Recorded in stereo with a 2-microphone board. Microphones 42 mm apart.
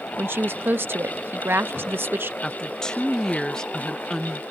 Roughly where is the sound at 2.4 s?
Centre.